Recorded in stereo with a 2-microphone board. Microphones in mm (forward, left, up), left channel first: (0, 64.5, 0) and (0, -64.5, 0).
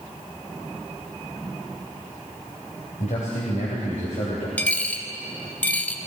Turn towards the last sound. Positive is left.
turn(degrees=10)  # may be behind; listen again after turning